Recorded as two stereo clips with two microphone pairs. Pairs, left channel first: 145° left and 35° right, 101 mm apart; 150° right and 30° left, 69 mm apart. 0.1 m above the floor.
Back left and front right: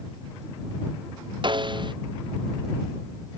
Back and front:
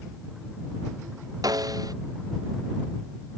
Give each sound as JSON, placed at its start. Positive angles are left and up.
{"t": 1.4, "sound": "a snare drum", "azimuth_deg": 0}